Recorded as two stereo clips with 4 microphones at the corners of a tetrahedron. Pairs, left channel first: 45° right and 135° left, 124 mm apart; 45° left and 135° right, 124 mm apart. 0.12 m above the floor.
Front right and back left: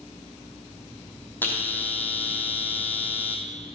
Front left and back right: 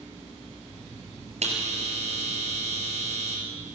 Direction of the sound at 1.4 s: 120° right.